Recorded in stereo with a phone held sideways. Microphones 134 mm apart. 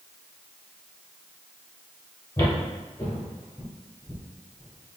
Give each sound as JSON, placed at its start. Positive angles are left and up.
{"t": 2.4, "sound": "footsteps", "side_deg": 20, "distance_m": 1.6}